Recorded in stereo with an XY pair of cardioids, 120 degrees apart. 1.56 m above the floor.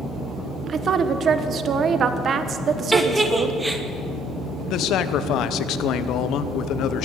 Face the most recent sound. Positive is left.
turn(degrees=70)